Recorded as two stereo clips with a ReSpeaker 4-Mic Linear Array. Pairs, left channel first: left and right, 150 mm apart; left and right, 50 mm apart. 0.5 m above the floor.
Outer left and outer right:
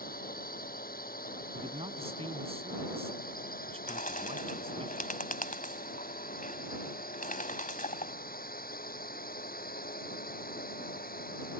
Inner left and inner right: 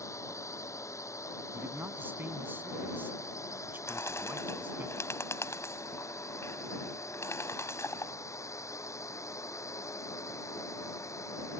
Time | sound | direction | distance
0.0 | a drone | 75° left (ahead or behind) | ?
1.5 | a man speaking | 40° right (ahead or behind) | ?
3.9 | a bird | 65° left (ahead or behind) | ?